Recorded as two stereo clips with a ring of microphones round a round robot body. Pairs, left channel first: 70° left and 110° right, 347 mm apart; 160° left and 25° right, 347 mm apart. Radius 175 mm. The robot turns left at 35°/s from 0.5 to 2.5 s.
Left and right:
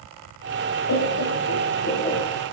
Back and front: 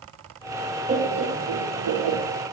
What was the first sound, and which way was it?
Laughter, 45° left.